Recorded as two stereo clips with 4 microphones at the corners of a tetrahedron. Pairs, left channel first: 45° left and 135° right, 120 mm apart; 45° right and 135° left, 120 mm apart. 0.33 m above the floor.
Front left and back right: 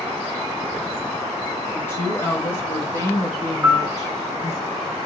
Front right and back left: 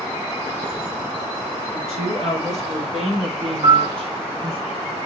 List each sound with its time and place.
1.7 s a woman speaking: 115° left, 6 m; by 4.6 s 100° left, 3.5 m
3.6 s a piano: 150° left, 1.8 m